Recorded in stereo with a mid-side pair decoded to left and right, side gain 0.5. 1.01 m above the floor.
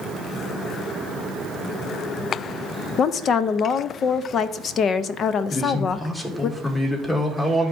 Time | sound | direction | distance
3.0 | a woman speaking | 55° left | 0.5 m
5.5 | a man speaking | 20° left | 2.5 m